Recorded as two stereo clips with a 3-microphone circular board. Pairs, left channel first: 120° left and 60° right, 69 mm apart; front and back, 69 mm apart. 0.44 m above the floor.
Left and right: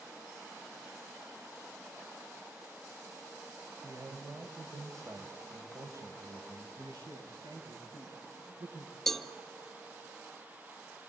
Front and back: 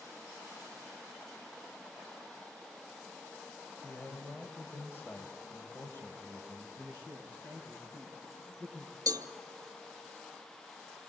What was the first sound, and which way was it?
A man speaking, 50° right.